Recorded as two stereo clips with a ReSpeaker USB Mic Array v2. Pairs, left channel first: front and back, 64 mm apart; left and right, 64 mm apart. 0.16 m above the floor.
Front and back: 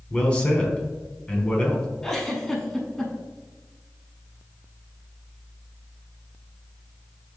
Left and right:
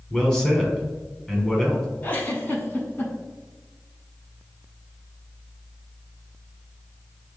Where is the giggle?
80° left, 0.9 m.